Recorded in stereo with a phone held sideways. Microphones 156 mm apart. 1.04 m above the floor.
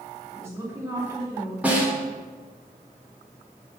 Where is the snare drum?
10° right (ahead or behind), 1.7 m.